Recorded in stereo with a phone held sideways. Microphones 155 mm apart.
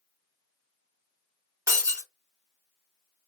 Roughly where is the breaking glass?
Centre.